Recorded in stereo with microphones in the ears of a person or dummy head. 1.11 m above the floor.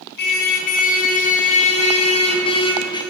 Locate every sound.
0.2 s a car horn: 65° left (ahead or behind), 7 m; by 3.0 s 30° left (ahead or behind), 6.5 m